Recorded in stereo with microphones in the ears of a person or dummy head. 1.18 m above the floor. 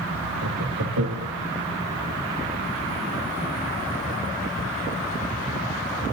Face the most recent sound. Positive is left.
turn(degrees=-85)